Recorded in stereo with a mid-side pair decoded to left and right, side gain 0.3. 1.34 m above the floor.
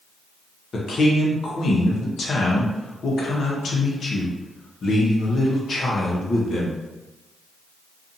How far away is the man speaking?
About 0.8 m.